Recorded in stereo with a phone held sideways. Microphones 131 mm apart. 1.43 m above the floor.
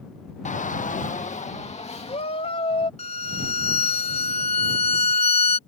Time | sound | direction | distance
0.5 | a shout | 65° left (ahead or behind) | ?
3.0 | a violin | 55° left (ahead or behind) | ?